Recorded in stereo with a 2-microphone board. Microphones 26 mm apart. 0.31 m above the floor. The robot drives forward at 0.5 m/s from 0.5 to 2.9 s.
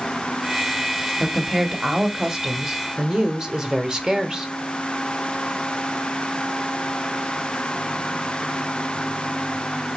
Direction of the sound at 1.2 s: 15° right (ahead or behind).